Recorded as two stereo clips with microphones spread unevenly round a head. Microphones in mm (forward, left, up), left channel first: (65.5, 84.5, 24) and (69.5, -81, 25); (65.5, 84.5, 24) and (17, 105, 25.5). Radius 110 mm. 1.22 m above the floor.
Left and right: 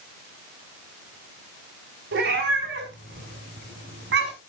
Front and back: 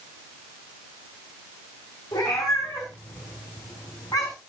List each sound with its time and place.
2.1 s a cat meowing: 90° right, 4.5 m; by 4.3 s 85° right, 6 m